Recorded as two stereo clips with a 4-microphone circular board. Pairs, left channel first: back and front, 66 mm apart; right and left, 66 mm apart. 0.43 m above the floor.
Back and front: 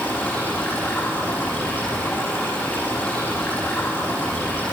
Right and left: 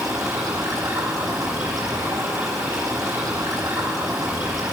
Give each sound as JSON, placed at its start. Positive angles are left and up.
{"t": 0.0, "sound": "running water", "azimuth_deg": 120, "distance_m": 9.5}